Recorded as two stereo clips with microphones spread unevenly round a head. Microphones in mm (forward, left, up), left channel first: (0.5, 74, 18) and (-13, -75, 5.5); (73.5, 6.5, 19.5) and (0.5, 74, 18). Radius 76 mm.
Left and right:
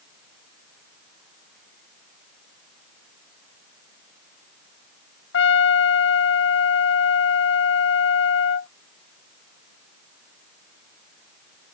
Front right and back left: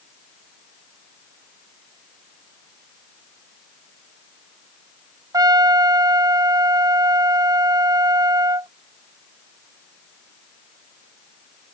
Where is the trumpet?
85° left.